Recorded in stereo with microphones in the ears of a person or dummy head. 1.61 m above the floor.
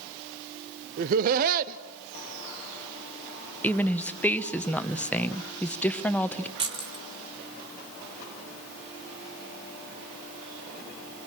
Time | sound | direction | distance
1.0 | laughter | 45° right (ahead or behind) | 0.8 m
3.6 | a woman speaking | 5° left (ahead or behind) | 1.2 m
6.6 | keys jangling | 25° right (ahead or behind) | 1.3 m